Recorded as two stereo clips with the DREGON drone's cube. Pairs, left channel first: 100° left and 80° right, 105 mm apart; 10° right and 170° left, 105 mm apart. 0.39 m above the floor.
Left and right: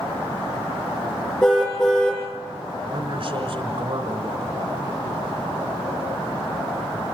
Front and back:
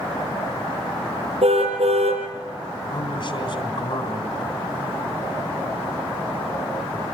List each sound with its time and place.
1.4 s a car horn: straight behind, 8.5 m
2.9 s a man speaking: 45° right, 3.5 m